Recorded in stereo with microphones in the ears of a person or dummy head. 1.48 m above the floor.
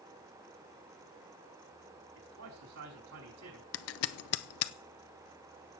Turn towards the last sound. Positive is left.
turn(degrees=75)  # may be behind; listen again after turning